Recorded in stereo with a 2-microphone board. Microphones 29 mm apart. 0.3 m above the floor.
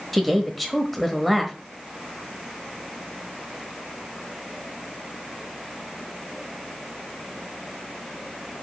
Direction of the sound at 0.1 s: 5° left (ahead or behind).